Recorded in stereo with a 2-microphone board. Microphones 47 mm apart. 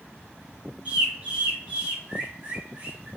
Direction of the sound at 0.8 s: 30° right (ahead or behind).